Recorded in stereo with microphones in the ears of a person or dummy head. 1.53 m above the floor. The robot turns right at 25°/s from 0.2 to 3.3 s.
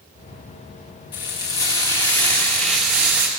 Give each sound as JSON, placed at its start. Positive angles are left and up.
{"t": 1.1, "sound": "frying", "azimuth_deg": 145, "distance_m": 1.3}